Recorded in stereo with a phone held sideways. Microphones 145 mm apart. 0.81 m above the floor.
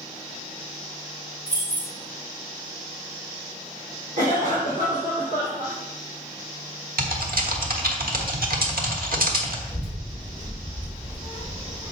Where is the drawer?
No drawer in this recording.